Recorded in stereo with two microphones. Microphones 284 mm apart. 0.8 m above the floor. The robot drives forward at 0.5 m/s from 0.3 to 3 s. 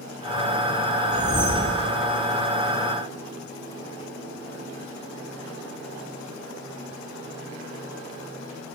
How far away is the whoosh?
About 5 m.